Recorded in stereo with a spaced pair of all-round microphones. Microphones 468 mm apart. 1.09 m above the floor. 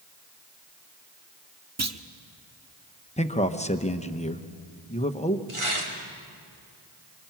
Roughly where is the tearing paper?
Right.